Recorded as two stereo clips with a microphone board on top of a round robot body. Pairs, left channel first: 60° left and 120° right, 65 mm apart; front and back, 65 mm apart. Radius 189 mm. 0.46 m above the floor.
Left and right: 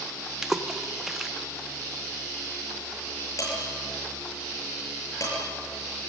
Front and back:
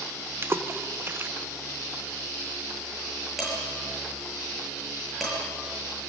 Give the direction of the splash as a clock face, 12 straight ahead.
7 o'clock.